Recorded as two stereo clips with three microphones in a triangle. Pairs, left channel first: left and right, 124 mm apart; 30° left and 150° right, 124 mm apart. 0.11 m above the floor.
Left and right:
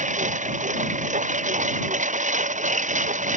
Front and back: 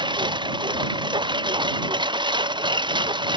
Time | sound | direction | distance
0.0 | a lawn mower | 100° right | ?